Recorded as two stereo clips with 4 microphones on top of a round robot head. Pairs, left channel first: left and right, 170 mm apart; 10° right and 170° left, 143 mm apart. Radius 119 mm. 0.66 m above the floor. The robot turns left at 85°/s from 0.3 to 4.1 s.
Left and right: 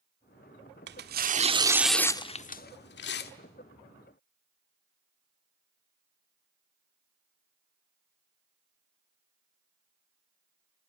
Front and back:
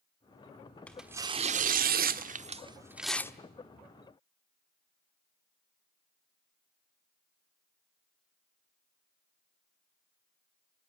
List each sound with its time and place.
0.9 s tearing paper: 90° right, 1.3 m; by 3.3 s 60° left, 1.3 m